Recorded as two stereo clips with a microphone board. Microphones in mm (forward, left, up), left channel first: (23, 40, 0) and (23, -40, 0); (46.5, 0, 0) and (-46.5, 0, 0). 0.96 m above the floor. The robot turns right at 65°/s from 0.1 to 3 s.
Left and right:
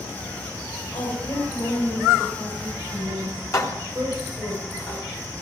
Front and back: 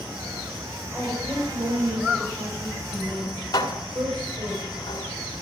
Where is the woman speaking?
80° left, 5.5 m; by 4.5 s 145° right, 5.5 m.